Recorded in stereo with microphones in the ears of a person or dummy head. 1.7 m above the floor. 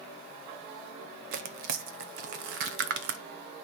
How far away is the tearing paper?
About 0.7 m.